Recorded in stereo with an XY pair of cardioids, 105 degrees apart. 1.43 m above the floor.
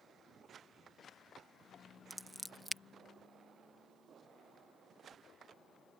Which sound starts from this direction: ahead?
Scissors, at 2.1 s.